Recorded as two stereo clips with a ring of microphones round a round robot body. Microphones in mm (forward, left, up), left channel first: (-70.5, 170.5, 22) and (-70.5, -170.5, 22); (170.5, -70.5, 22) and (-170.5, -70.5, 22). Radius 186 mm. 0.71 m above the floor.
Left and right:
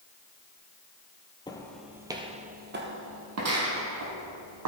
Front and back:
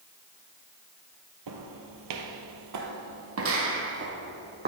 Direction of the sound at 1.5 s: 165° left.